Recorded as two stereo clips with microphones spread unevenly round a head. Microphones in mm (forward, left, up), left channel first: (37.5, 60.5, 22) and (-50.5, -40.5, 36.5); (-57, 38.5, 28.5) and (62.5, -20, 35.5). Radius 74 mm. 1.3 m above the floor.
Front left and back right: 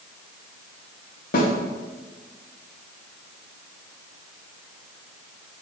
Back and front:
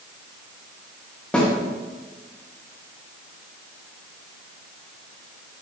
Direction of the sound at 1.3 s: 70° left.